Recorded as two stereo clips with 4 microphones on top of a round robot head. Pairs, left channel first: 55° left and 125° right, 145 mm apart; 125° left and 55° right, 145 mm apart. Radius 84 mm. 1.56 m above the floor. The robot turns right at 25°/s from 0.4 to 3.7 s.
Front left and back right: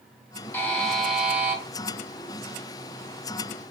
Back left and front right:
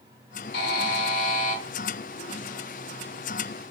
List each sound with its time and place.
0.5 s a buzzer: 135° left, 1.0 m; by 1.6 s 160° left, 1.0 m